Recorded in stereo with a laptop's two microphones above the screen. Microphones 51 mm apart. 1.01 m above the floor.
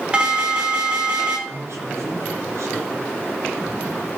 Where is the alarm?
20° right (ahead or behind), 3.5 m.